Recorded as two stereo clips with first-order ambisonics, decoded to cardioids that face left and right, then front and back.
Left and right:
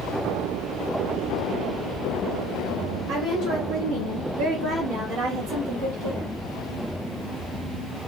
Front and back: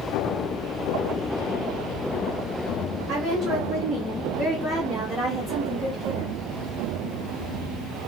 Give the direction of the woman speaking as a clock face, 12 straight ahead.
4 o'clock.